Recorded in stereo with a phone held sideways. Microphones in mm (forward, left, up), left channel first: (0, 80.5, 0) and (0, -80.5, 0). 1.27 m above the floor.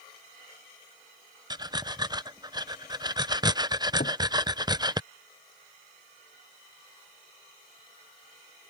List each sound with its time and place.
1.5 s breathing: 25° right (ahead or behind)
4.0 s a cupboard door: 65° left (ahead or behind)